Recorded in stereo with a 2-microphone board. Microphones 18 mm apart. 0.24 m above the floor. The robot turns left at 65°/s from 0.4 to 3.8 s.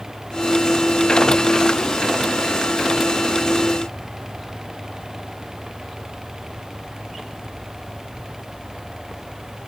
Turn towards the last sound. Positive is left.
No sound to turn to.